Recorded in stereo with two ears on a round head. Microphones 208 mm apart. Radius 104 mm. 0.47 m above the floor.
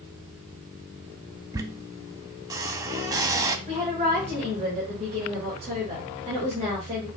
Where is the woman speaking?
30° right (ahead or behind), 2.5 m.